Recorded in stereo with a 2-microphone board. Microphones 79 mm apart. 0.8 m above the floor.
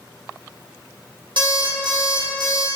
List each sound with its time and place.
1.4 s an alarm clock: 75° right (ahead or behind), 0.9 m